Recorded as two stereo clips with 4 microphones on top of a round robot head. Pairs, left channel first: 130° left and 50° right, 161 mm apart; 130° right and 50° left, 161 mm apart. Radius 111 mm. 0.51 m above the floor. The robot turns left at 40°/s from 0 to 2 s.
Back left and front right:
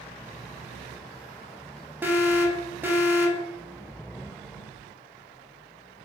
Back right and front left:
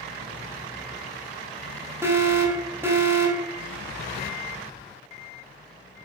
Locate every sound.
2.0 s an alarm: 5° left, 0.7 m